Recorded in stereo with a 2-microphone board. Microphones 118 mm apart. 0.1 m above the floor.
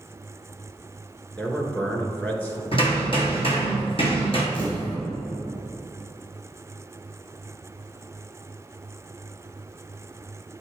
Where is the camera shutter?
15° left (ahead or behind), 1.8 m.